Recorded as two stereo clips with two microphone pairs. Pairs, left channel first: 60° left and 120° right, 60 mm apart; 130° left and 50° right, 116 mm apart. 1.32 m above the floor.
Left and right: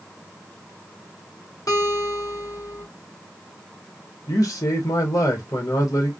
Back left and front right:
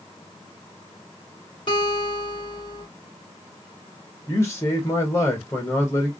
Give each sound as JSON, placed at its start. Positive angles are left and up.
{"t": 1.7, "sound": "a guitar", "azimuth_deg": 85, "distance_m": 1.8}
{"t": 4.3, "sound": "a man speaking", "azimuth_deg": 65, "distance_m": 1.5}